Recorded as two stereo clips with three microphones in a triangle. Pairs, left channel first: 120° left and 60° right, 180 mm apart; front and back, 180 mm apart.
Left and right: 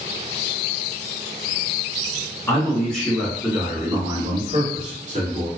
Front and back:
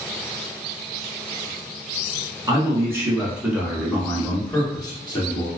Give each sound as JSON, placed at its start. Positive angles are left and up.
{"t": 2.5, "sound": "a man speaking", "azimuth_deg": 175, "distance_m": 1.1}